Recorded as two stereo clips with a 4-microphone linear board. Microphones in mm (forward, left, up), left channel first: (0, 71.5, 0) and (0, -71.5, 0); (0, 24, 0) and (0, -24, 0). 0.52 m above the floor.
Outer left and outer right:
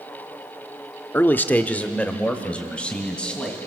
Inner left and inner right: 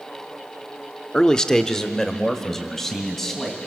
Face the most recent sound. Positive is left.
turn(degrees=5)  # may be behind; listen again after turning